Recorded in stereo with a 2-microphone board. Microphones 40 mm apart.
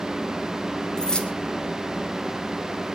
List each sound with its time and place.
1.0 s keys jangling: 20° left (ahead or behind), 2.5 m